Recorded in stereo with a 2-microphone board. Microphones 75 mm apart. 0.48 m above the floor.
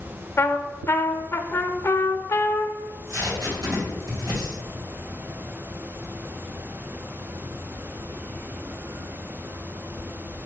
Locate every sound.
0.4 s a trumpet: 35° left (ahead or behind), 0.5 m
2.8 s tape being pulled: 55° right (ahead or behind), 3 m